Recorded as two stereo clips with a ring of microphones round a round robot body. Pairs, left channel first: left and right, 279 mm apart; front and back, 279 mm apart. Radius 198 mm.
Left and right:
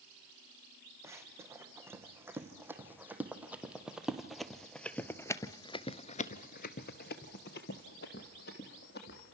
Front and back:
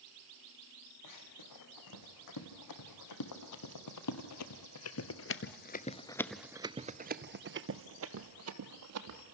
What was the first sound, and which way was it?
Running footsteps, 10° right.